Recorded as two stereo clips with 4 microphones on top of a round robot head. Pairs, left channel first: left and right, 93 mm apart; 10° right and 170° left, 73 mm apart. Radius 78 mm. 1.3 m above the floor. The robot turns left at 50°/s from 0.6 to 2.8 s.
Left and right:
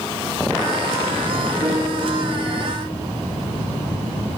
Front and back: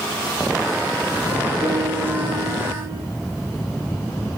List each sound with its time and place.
1.6 s a piano: 175° right, 1.4 m; by 3.0 s 125° left, 1.4 m